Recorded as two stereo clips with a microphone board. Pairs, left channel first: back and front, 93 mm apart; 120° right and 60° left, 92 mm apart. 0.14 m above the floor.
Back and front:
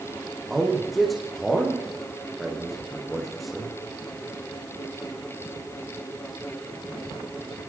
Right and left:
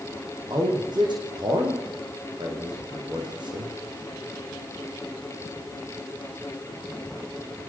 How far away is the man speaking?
About 8.5 m.